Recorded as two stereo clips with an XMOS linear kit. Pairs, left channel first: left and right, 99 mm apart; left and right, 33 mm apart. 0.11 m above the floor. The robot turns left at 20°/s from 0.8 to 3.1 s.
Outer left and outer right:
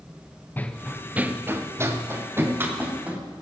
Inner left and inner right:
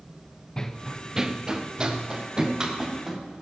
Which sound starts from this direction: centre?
Running footsteps, at 0.6 s.